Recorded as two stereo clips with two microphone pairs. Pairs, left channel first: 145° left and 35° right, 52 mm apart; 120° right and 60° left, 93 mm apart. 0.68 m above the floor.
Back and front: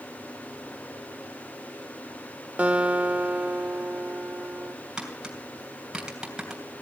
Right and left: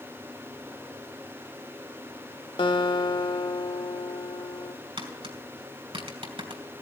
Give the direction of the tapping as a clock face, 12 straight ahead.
10 o'clock.